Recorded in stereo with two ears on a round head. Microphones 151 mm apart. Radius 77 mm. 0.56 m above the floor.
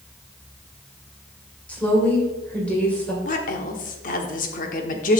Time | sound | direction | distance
1.7 | a woman speaking | 10° left (ahead or behind) | 2.5 m
3.2 | a woman speaking | 50° left (ahead or behind) | 1.1 m